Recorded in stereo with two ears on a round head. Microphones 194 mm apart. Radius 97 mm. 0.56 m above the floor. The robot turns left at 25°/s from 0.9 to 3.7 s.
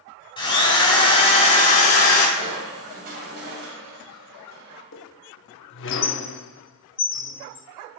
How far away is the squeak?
About 0.7 m.